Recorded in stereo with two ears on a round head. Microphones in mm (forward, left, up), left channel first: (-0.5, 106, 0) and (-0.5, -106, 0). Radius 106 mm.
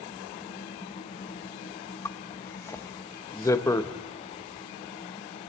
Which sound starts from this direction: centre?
A zipper, at 2.0 s.